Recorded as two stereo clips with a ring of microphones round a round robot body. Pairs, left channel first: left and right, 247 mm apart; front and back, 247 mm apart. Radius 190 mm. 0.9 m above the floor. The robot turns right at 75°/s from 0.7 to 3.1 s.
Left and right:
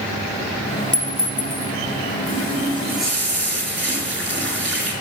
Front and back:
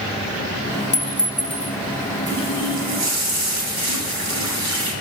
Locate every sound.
0.9 s a clink: 30° left, 0.8 m; by 1.8 s 90° left, 0.8 m
2.3 s a running tap: 135° left, 2.5 m; by 4.9 s 160° right, 2.5 m